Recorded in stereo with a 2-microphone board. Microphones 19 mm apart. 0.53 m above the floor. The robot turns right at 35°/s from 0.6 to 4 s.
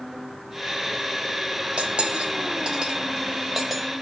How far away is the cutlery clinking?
About 1.4 m.